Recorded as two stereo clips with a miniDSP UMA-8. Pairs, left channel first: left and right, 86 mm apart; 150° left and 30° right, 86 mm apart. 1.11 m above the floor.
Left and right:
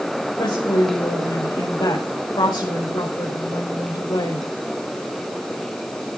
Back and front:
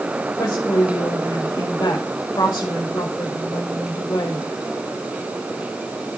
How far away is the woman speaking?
About 5 m.